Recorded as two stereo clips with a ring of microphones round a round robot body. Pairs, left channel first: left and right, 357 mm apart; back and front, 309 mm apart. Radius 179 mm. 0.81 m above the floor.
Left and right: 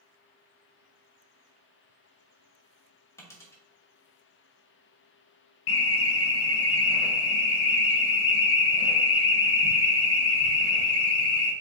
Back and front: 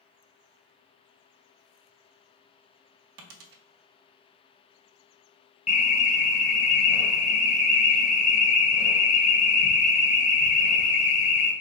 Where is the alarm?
115° left, 0.6 m.